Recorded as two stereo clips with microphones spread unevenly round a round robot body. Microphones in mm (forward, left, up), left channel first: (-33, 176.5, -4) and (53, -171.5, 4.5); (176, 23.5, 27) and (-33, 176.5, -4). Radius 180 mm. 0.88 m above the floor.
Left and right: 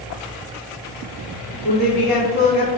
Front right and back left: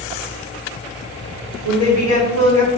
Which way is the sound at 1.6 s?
175° left.